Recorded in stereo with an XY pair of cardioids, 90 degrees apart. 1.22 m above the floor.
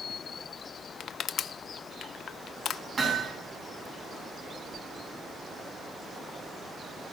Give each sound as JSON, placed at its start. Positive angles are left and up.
{"t": 1.0, "sound": "crushing", "azimuth_deg": 70, "distance_m": 0.6}
{"t": 3.0, "sound": "hammering", "azimuth_deg": -45, "distance_m": 8.0}